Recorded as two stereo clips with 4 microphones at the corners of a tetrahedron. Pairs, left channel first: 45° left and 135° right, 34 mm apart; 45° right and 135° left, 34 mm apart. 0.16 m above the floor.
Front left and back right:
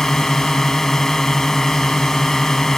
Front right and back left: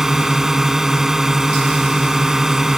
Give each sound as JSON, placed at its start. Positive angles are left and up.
{"t": 0.0, "sound": "a drone", "azimuth_deg": 95}